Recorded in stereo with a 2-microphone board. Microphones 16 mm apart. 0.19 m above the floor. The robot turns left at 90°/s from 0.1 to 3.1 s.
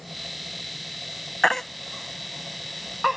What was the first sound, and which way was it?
A baby crying, 20° left (ahead or behind).